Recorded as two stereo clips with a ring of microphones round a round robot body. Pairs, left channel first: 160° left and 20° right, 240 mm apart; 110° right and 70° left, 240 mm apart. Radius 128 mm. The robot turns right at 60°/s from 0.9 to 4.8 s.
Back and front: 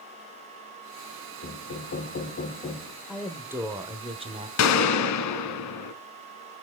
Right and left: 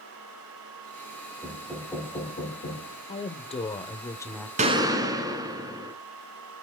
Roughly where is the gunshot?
Behind left.